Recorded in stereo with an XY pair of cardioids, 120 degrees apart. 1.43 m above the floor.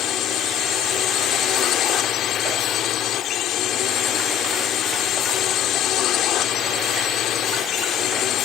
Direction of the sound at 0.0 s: 65° left.